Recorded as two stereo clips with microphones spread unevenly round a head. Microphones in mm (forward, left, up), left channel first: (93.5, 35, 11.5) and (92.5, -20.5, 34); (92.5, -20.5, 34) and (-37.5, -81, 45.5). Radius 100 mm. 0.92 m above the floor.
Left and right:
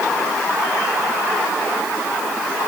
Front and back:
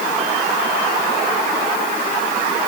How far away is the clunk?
No clunk in this recording.